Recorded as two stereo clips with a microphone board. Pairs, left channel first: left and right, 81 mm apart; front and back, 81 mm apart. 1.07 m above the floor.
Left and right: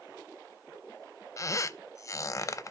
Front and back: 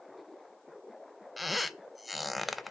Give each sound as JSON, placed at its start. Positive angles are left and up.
{"t": 1.4, "sound": "a squeak", "azimuth_deg": 90, "distance_m": 0.5}